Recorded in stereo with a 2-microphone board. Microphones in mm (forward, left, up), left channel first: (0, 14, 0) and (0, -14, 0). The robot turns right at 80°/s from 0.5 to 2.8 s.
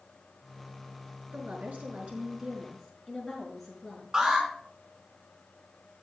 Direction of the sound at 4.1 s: 30° right (ahead or behind).